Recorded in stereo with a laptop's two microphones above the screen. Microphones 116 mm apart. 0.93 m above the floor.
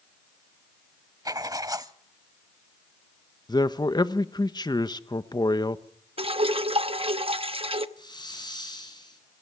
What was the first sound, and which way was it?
Writing, 30° right (ahead or behind).